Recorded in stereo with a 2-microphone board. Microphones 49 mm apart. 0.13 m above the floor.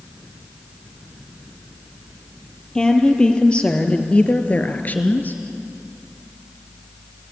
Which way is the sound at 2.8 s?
15° left (ahead or behind).